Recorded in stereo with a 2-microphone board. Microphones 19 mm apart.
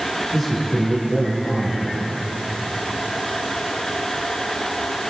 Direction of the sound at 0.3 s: 10° left (ahead or behind).